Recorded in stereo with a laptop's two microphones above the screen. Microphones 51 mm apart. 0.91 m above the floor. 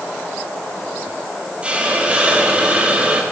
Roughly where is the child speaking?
No child speaking in this recording.